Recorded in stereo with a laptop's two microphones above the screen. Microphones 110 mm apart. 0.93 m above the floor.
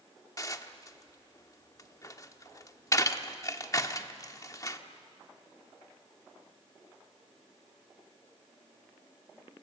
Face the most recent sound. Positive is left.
turn(degrees=30)  # may be behind; listen again after turning